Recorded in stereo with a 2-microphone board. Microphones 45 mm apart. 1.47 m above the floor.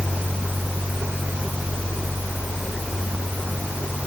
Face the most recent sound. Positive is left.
No sound to turn to.